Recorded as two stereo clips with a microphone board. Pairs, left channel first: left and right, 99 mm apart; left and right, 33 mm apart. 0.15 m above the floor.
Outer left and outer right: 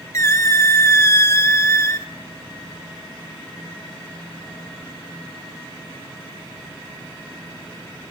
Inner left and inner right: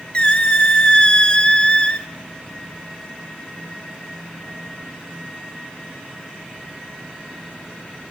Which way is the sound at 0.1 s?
30° left (ahead or behind).